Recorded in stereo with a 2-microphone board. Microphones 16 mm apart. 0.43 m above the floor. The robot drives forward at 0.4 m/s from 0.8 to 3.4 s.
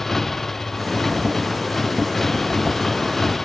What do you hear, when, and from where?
0.0 s a motorcycle: 25° left (ahead or behind)